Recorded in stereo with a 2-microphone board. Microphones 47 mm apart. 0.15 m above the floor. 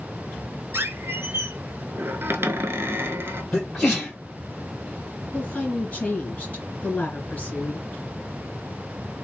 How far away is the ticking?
No ticking in this recording.